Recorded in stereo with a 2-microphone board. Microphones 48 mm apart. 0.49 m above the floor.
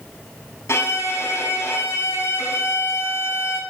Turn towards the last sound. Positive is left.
turn(degrees=65)  # may be behind; listen again after turning